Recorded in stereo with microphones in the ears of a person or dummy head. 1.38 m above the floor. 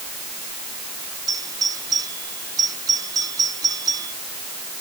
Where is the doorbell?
20° right (ahead or behind).